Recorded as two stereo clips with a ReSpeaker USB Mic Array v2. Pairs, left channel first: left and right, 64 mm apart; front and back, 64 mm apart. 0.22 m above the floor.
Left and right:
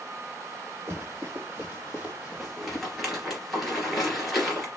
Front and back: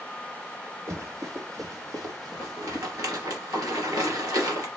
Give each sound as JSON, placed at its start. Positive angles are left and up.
{"t": 0.9, "sound": "running footsteps", "azimuth_deg": -145, "distance_m": 2.5}
{"t": 2.4, "sound": "a rattle", "azimuth_deg": 180, "distance_m": 2.5}